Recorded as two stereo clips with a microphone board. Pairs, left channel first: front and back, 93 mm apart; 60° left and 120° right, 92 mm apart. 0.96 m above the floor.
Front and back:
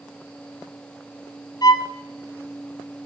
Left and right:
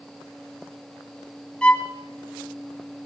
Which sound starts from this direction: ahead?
A violin, at 1.6 s.